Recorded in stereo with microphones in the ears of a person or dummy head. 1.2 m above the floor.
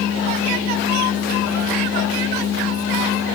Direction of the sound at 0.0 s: 75° left (ahead or behind).